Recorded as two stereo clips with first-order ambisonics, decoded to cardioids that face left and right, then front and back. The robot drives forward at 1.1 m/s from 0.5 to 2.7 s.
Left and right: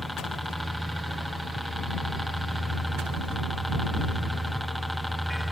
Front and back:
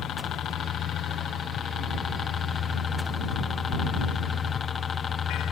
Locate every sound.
0.0 s a helicopter: 5° right